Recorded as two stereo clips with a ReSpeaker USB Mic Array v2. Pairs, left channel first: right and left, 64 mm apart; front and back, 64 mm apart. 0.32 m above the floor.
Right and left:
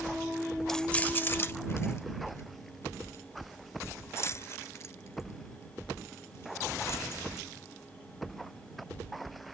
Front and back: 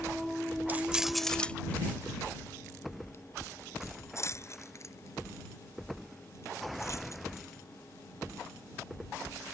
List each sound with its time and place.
0.7 s keys jangling: 165° right; by 7.5 s 40° right